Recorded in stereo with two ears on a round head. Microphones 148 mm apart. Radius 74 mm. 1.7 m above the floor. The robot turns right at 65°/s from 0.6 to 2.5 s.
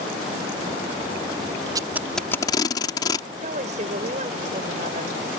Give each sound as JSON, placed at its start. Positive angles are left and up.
{"t": 1.8, "sound": "tape being pulled", "side_deg": -25}
{"t": 3.4, "sound": "a woman speaking", "side_deg": -45}